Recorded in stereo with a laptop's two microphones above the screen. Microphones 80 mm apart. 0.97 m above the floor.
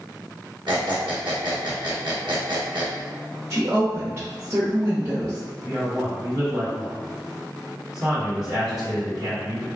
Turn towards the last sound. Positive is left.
turn(degrees=-55)  # may be behind; listen again after turning